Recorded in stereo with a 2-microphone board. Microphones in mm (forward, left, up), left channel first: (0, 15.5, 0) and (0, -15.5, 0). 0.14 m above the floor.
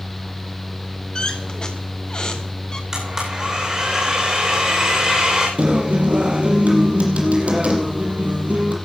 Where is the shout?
No shout in this recording.